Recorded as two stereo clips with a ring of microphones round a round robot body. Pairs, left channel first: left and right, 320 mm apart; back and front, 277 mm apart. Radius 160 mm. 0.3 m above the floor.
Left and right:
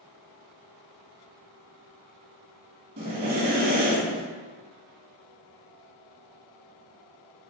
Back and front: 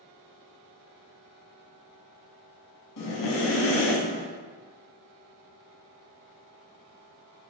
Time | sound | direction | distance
3.0 | breathing | 155° right | 0.8 m